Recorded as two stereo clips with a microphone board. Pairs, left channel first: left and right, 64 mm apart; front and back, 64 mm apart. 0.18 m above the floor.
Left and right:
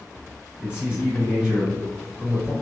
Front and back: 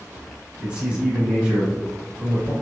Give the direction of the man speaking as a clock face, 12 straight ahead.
5 o'clock.